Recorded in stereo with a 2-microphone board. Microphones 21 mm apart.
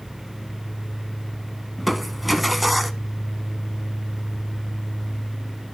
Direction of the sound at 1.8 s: 5° right (ahead or behind).